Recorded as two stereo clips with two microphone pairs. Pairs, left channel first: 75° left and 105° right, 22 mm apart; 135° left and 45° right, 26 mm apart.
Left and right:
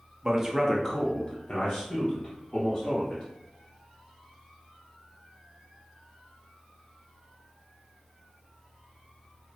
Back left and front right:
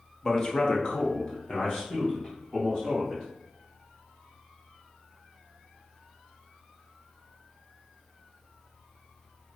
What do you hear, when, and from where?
0.2 s a man speaking: 155° right, 0.8 m; by 3.2 s 65° left, 2.5 m